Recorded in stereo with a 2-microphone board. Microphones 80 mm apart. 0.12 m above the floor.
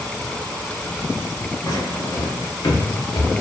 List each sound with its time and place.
1.6 s footsteps: 60° left (ahead or behind), 1.1 m; by 3.3 s 70° left (ahead or behind), 0.7 m